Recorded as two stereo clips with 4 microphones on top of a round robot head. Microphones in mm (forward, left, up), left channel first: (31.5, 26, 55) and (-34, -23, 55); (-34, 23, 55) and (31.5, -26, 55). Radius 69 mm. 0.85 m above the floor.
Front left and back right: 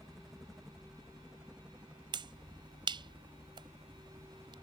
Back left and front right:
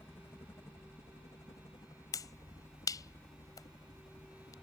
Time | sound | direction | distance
0.0 | a helicopter | 120° left | ?
2.1 | a finger snap | 170° right | ?